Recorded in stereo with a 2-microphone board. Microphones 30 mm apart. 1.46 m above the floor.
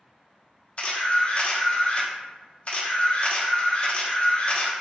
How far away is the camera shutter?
About 0.8 m.